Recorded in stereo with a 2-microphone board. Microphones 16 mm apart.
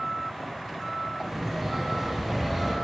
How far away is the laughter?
About 5.5 m.